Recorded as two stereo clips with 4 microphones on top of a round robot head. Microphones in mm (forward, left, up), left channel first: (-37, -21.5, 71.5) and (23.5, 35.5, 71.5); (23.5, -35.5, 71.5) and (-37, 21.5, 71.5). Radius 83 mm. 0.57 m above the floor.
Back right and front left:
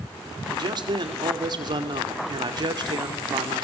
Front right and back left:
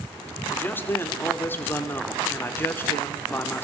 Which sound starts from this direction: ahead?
A man speaking, at 0.5 s.